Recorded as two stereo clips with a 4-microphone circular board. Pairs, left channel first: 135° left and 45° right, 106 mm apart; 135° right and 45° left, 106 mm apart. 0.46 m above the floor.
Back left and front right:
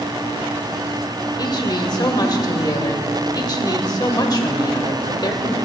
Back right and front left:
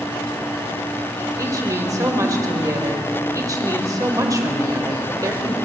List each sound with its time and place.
1.4 s a woman speaking: 95° left, 1.5 m